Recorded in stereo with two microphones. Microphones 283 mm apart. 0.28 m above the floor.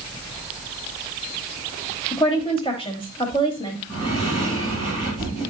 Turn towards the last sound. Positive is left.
turn(degrees=15)  # may be behind; listen again after turning